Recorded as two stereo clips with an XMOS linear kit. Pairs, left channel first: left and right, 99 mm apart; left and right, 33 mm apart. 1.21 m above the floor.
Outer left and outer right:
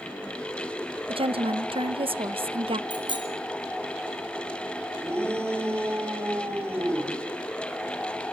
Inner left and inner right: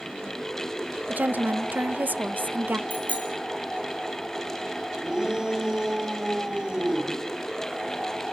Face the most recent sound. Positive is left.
turn(degrees=-25)  # may be behind; listen again after turning